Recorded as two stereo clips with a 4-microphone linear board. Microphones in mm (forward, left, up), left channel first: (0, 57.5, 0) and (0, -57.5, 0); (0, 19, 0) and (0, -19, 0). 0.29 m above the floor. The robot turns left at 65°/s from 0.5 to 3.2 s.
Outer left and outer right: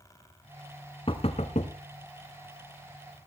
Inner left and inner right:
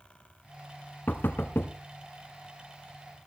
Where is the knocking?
50° left (ahead or behind), 1.9 m; by 1.7 s 70° left (ahead or behind), 1.9 m.